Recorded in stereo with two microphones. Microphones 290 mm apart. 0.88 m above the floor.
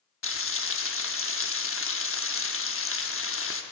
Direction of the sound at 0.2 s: 45° left (ahead or behind).